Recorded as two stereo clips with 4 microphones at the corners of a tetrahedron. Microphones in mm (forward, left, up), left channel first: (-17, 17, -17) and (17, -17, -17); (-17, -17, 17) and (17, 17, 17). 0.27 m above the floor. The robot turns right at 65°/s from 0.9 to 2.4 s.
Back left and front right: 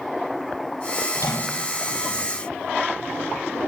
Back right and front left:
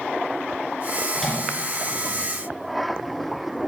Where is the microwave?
130° left, 4 m; by 1.6 s 160° left, 4 m.